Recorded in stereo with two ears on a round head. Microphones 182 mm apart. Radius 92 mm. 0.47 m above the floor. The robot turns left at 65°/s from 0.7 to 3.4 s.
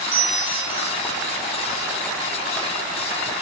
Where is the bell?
70° right (ahead or behind), 2.5 m; by 0.9 s 60° right (ahead or behind), 2.5 m.